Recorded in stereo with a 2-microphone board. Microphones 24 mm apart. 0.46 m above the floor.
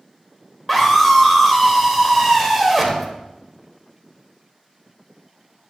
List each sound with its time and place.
0.7 s a scream: centre (ahead or behind), 1.7 m